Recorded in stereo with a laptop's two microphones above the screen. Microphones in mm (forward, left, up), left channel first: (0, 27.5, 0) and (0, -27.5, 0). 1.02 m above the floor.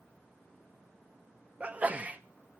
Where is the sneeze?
25° right (ahead or behind), 0.7 m.